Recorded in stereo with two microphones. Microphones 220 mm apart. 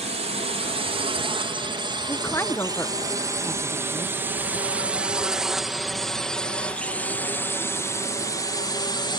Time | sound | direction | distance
0.0 | a drone | 30° right (ahead or behind) | ?
2.1 | a woman speaking | 10° left (ahead or behind) | ?